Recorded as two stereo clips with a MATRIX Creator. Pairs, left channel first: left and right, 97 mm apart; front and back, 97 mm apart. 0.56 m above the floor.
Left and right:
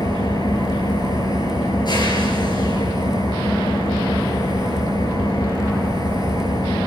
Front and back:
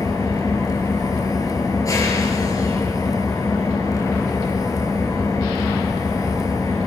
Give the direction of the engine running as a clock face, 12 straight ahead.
10 o'clock.